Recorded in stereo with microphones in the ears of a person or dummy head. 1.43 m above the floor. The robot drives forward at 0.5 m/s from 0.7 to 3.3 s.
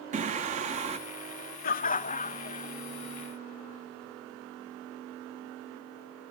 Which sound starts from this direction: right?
Singing, at 0.1 s.